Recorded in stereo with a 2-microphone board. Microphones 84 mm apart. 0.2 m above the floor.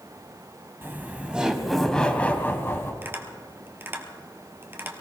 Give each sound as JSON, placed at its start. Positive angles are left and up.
{"t": 0.8, "sound": "laughter", "side_deg": -25, "distance_m": 1.4}
{"t": 3.0, "sound": "tapping", "side_deg": -25, "distance_m": 1.7}